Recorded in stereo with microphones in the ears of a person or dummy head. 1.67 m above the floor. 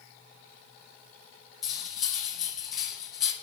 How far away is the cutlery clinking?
About 1.5 m.